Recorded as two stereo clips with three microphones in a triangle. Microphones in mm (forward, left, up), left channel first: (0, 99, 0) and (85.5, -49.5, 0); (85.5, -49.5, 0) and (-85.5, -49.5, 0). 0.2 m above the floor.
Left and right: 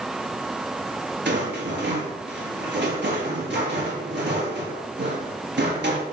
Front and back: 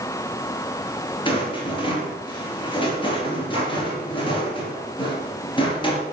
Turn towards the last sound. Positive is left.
turn(degrees=-60)